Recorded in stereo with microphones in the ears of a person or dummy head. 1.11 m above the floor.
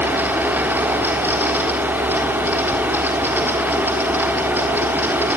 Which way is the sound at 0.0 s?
10° right (ahead or behind).